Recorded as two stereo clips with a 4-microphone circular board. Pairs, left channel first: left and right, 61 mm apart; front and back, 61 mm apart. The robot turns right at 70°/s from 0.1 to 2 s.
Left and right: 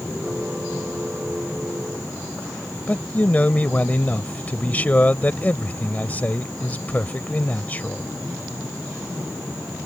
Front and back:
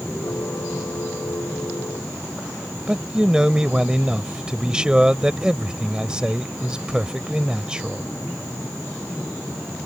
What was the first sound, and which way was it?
A man speaking, 120° left.